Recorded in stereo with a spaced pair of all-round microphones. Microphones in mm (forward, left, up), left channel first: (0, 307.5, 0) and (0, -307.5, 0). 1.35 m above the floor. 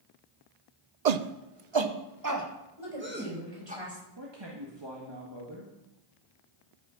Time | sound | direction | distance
1.1 | a shout | 80° right | 0.7 m
2.8 | a woman speaking | 50° right (ahead or behind) | 6.5 m
4.2 | a man speaking | 40° right (ahead or behind) | 1.6 m